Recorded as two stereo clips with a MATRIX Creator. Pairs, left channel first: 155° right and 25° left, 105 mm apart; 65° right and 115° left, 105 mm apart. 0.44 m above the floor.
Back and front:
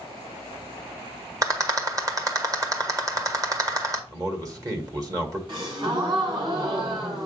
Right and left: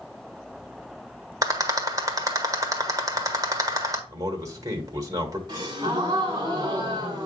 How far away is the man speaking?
About 1.6 m.